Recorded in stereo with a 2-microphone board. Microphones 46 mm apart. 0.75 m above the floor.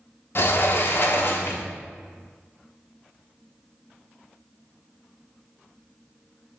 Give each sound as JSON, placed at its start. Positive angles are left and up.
{"t": 0.3, "sound": "a sliding door", "side_deg": 55, "distance_m": 0.5}